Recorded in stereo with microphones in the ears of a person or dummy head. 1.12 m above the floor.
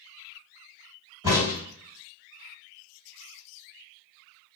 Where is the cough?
No cough in this recording.